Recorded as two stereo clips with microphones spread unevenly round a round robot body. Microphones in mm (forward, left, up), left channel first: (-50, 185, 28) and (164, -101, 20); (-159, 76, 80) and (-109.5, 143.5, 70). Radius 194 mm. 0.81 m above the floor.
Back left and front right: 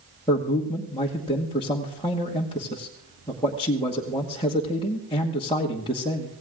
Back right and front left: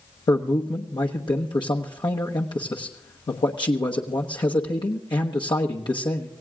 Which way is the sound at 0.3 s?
155° right.